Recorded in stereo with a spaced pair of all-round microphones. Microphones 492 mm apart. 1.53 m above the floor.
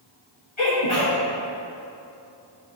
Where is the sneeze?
65° left (ahead or behind), 1.2 m.